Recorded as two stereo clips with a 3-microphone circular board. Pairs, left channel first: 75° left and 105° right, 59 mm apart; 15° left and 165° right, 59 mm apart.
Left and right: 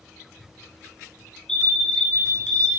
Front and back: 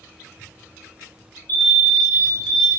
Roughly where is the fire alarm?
Ahead.